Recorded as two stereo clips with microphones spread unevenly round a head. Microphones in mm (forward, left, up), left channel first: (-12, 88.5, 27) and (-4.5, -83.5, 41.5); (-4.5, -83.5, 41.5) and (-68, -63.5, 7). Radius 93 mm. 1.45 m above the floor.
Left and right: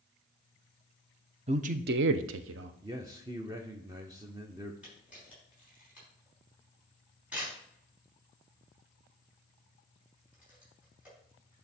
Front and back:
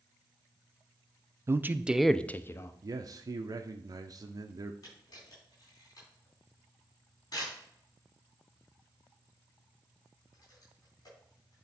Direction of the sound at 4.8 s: 5° right.